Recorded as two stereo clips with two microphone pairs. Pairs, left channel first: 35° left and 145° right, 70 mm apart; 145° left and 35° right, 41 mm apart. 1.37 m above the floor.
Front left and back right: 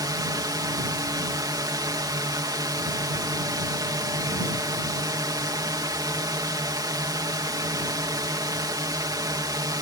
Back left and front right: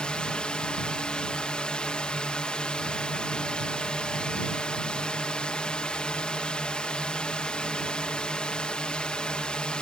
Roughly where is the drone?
Behind right.